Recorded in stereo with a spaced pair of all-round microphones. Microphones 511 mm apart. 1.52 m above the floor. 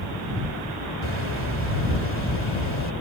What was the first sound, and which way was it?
A bird, 65° left (ahead or behind).